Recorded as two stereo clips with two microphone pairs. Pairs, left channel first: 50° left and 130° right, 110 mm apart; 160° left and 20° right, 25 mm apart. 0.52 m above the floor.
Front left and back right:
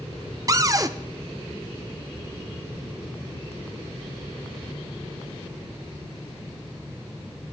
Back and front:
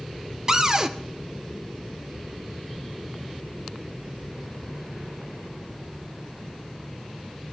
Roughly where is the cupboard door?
Right.